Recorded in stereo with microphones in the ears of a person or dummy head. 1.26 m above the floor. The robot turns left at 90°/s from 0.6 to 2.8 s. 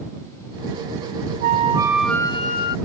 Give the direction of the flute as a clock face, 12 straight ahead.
4 o'clock.